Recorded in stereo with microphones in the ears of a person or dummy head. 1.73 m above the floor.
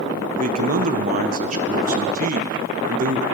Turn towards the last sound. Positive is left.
turn(degrees=-45)  # may be behind; listen again after turning